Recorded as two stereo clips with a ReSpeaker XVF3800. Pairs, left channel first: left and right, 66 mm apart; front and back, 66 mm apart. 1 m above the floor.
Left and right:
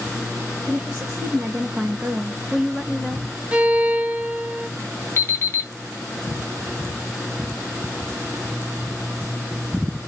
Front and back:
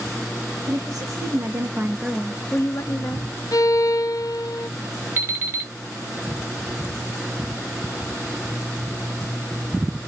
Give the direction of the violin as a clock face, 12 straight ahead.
1 o'clock.